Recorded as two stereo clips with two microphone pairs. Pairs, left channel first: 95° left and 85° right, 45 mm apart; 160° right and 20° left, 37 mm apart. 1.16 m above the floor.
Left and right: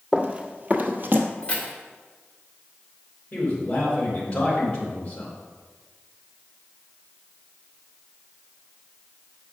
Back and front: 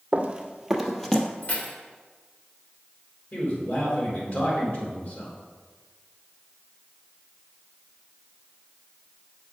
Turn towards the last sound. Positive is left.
turn(degrees=160)